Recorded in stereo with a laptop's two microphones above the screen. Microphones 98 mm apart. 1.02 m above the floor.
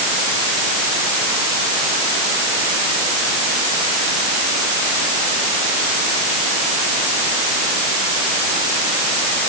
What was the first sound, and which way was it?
Only background noise.